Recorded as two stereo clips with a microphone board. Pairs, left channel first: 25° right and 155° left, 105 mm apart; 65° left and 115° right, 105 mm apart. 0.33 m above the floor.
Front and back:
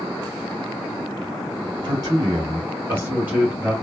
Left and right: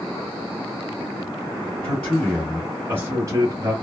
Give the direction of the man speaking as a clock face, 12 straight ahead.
7 o'clock.